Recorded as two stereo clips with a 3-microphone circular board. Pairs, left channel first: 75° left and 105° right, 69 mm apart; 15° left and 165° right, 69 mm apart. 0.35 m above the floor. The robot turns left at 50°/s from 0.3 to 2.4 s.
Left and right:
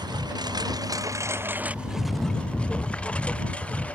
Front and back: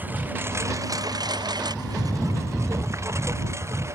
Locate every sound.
0.0 s a lawn mower: 100° right; by 4.0 s 145° left